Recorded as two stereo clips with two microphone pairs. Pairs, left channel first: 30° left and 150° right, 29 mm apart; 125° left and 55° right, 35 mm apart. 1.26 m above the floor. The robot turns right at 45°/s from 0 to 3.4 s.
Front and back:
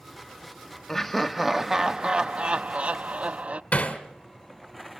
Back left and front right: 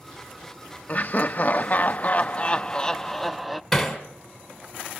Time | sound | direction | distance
0.9 | laughter | 105° left | 0.5 m
3.7 | hammering | 40° left | 2.5 m